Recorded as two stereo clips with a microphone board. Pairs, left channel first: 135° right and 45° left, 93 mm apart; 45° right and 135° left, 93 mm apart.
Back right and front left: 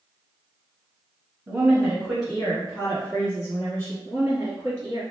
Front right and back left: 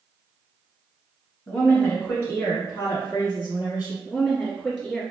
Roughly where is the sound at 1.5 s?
Ahead.